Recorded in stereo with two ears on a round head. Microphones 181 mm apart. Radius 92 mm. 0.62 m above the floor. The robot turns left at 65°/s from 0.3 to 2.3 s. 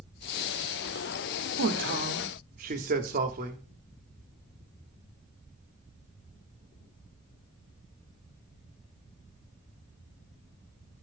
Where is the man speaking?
80° right, 1.4 m; by 3.6 s 125° right, 1.4 m.